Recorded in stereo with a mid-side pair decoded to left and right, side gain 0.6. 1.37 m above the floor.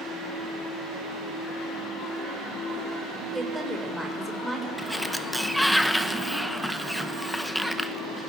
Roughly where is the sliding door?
Ahead.